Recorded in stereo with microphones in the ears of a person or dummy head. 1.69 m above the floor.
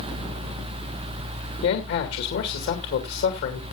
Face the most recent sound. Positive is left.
turn(degrees=70)  # may be behind; listen again after turning